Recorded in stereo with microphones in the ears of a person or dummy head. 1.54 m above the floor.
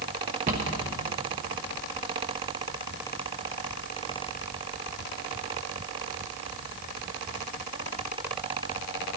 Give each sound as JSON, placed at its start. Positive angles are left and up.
{"t": 0.5, "sound": "a cupboard door", "side_deg": -40, "distance_m": 1.1}